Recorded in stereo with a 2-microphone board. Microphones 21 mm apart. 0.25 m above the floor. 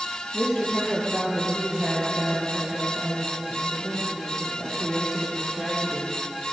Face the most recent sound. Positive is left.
turn(degrees=85)